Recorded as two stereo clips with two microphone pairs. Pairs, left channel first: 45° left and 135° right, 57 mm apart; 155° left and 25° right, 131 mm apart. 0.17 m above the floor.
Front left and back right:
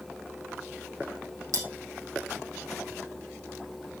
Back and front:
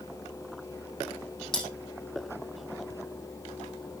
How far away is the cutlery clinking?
About 4.5 m.